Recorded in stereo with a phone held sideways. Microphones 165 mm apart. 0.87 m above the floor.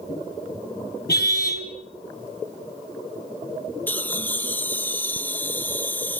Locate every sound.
1.1 s a car horn: 70° left (ahead or behind), 3.5 m
3.9 s laughter: 10° left (ahead or behind), 1.0 m